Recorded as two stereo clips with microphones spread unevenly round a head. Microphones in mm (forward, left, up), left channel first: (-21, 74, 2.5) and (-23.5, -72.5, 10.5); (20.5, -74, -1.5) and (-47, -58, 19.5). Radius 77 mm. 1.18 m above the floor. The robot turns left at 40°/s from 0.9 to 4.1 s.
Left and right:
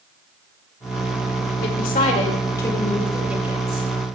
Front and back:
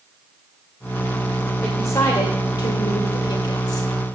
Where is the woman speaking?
60° left, 2.5 m; by 3.9 s 30° right, 2.5 m.